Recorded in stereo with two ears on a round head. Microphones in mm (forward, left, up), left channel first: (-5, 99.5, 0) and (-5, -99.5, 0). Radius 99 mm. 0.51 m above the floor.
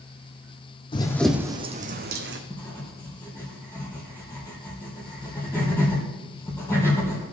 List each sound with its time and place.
0.9 s running footsteps: 25° left (ahead or behind), 1.2 m; by 2.4 s 55° right (ahead or behind), 1.9 m
2.5 s writing: 15° left (ahead or behind), 3.5 m